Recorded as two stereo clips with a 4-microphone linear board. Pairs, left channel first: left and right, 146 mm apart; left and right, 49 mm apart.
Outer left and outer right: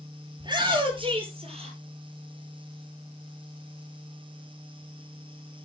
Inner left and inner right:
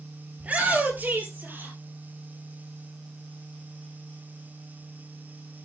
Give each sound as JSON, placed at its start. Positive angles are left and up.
{"t": 0.4, "sound": "a shout", "side_deg": -30, "distance_m": 3.0}